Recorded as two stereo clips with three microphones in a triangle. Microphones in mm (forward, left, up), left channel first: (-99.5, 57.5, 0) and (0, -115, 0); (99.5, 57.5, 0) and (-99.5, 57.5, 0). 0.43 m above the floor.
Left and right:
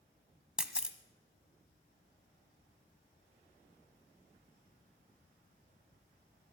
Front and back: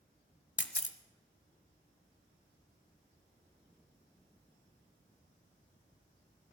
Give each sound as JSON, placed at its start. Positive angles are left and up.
{"t": 0.6, "sound": "a camera shutter", "azimuth_deg": 25, "distance_m": 0.9}